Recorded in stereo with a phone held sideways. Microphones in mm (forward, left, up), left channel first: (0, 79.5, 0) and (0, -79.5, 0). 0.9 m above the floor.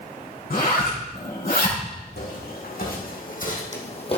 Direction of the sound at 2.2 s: 75° left (ahead or behind).